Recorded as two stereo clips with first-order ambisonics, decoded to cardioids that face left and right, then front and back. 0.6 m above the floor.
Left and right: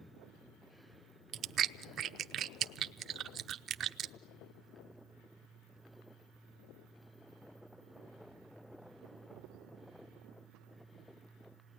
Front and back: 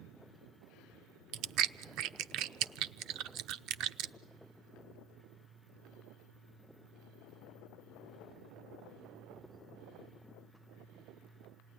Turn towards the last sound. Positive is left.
turn(degrees=-145)